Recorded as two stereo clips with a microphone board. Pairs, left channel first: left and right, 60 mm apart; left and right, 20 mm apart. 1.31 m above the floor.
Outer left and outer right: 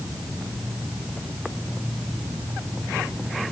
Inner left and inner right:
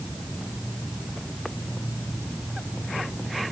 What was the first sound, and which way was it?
Only background noise.